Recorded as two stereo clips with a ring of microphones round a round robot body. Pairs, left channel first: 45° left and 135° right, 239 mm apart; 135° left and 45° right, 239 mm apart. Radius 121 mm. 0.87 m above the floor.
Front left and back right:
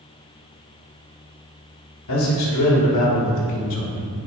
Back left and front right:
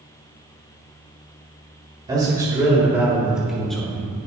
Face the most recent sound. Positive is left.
turn(degrees=55)